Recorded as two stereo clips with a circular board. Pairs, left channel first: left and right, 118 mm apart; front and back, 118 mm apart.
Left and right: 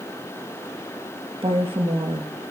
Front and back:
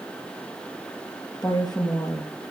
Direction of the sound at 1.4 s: 55° right.